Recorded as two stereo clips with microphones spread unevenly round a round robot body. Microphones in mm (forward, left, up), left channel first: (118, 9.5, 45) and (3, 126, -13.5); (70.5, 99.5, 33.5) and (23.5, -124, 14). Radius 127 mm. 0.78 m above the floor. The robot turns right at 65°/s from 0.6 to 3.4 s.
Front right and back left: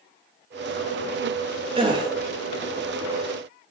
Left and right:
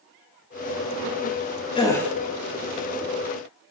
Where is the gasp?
145° left, 0.5 m; by 2.1 s 170° left, 0.5 m.